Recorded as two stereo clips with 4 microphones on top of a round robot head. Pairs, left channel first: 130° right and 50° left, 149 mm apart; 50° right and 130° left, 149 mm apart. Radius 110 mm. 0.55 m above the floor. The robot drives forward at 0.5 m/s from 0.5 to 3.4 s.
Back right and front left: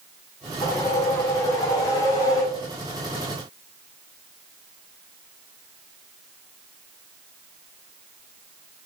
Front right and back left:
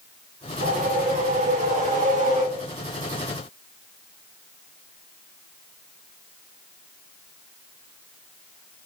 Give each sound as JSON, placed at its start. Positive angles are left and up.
{"t": 0.6, "sound": "a whoosh", "azimuth_deg": 160, "distance_m": 3.5}